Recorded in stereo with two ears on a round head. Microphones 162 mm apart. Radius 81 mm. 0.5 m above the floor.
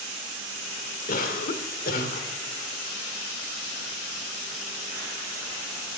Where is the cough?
50° left (ahead or behind), 1.3 m.